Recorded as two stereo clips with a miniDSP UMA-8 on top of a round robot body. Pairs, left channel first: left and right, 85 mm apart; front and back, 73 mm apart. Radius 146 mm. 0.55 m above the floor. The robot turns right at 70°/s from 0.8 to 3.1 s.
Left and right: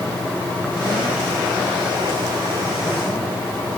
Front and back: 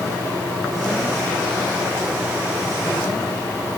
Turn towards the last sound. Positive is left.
No sound to turn to.